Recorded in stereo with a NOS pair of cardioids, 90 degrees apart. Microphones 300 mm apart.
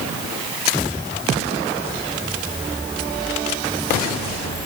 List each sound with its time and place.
Only background noise.